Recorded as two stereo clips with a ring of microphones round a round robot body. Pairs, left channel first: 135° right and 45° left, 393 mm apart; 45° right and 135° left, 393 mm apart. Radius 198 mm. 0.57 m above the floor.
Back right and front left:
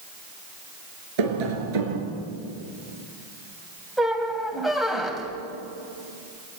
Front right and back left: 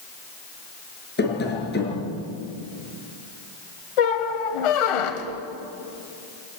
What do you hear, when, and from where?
1.2 s tapping: 20° left, 5 m
4.0 s a squeak: 45° right, 2 m